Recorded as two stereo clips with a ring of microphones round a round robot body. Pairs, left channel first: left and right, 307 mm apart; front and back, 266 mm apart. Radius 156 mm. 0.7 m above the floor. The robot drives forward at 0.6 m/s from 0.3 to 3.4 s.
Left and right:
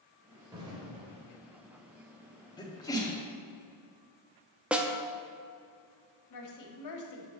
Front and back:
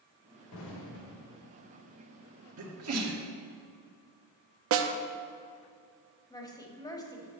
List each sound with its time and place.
0.5 s an explosion: 15° right, 1.5 m; by 1.3 s 20° right, 1.1 m
2.6 s a sneeze: 165° left, 1.5 m; by 3.2 s 170° left, 1.8 m
4.7 s a snare drum: 175° right, 0.6 m
6.3 s a woman speaking: 75° left, 1.5 m